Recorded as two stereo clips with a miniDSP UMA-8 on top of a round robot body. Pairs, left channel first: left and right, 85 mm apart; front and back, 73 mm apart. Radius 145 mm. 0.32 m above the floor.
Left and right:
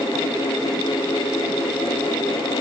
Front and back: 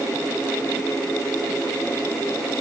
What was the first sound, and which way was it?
Only background noise.